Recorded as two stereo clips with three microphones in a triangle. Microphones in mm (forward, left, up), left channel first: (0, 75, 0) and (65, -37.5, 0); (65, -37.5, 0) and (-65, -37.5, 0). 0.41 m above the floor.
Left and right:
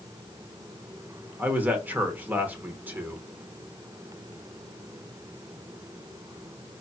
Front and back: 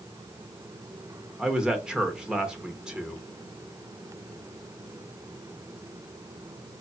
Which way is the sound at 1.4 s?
105° right.